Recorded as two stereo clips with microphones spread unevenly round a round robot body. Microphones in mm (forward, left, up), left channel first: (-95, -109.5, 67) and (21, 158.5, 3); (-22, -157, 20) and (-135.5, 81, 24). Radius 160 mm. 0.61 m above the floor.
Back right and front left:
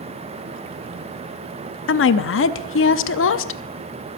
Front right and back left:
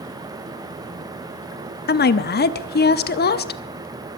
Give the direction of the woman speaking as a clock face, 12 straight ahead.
3 o'clock.